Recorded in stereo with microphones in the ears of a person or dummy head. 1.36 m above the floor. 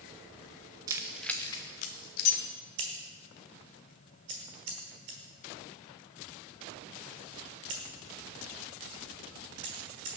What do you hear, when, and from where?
0.9 s keys jangling: 20° right (ahead or behind), 0.6 m; by 2.4 s 60° left (ahead or behind), 0.9 m
2.8 s scissors: 30° right (ahead or behind), 1.3 m